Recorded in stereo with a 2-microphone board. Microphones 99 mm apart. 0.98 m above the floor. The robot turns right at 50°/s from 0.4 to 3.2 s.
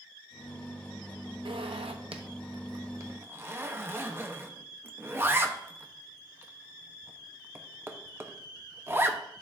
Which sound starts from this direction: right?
A zipper, at 1.4 s.